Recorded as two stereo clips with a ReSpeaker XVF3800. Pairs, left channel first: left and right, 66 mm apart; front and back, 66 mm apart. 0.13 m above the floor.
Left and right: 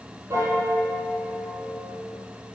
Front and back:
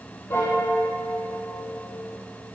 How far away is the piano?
About 3 m.